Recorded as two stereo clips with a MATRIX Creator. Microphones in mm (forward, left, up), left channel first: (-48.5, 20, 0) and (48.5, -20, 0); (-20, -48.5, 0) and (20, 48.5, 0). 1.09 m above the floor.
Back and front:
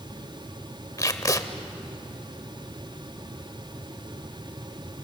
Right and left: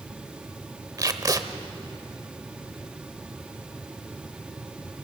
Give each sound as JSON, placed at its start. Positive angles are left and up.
{"t": 1.0, "sound": "tape being pulled", "azimuth_deg": 110, "distance_m": 1.1}